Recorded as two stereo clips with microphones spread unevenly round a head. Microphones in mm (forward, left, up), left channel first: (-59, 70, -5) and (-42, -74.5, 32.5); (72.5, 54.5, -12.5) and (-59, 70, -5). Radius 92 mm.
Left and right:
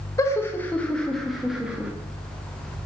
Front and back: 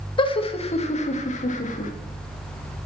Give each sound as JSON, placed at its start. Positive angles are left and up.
{"t": 0.2, "sound": "laughter", "azimuth_deg": 35, "distance_m": 1.6}